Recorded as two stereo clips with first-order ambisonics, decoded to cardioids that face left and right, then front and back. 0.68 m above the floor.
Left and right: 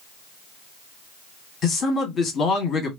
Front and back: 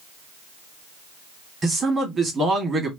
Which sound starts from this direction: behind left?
A man speaking, at 1.6 s.